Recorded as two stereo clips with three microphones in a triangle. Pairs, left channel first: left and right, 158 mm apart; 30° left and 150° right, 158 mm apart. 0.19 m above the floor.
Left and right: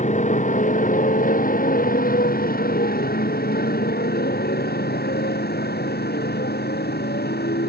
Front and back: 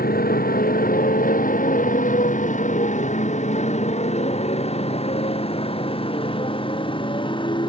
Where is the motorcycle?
50° left; by 7.7 s 90° left.